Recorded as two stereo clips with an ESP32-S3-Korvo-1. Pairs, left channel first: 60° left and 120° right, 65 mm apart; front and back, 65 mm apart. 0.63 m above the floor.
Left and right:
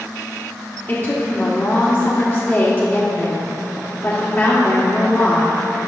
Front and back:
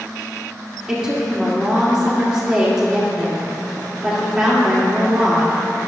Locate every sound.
0.9 s a woman speaking: 105° left, 1.6 m